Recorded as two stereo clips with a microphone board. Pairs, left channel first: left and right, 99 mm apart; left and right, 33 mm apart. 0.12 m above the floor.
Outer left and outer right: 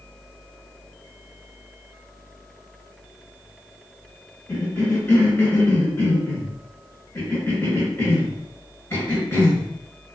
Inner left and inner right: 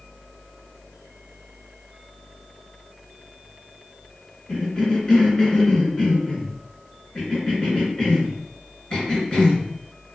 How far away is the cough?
About 1.5 m.